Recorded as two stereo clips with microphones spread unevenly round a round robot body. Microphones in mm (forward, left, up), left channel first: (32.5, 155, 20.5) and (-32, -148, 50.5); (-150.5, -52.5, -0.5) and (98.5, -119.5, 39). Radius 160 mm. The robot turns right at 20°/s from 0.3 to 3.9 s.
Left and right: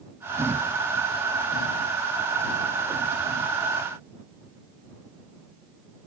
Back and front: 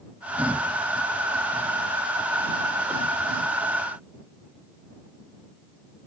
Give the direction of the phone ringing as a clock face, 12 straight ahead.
No phone ringing in this recording.